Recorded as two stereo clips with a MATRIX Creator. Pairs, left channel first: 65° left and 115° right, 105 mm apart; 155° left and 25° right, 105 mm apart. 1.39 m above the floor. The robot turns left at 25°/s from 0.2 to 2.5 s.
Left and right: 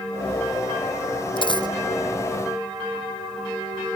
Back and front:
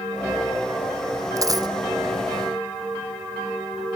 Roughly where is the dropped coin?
Ahead left.